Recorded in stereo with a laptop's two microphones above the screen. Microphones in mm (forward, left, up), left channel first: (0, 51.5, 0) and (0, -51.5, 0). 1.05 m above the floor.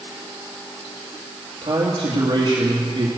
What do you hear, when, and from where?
1.6 s a man speaking: 55° right (ahead or behind), 1.7 m